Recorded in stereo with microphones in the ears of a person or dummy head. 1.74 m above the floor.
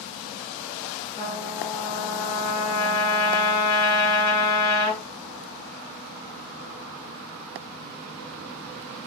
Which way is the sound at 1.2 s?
40° right (ahead or behind).